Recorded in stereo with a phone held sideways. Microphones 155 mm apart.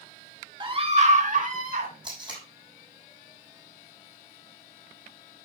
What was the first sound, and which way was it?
A scream, 30° right (ahead or behind).